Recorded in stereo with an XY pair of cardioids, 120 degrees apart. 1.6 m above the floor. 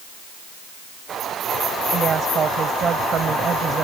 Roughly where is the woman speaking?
Ahead right.